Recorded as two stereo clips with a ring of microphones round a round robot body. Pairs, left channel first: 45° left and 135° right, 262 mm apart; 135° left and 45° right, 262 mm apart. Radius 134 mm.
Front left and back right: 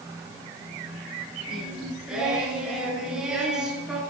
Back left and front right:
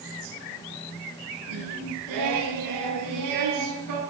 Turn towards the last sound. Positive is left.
turn(degrees=-50)